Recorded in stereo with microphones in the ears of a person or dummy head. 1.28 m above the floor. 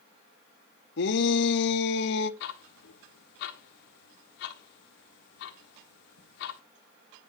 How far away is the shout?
About 1.2 m.